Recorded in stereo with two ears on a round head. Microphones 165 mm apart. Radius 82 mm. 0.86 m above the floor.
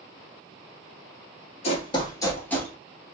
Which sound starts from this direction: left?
Running footsteps, at 1.6 s.